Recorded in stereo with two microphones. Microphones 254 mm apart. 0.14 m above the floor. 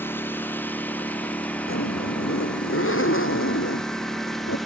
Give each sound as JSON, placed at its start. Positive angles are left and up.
{"t": 0.0, "sound": "a lawn mower", "side_deg": 10}
{"t": 1.7, "sound": "a zipper", "side_deg": 55}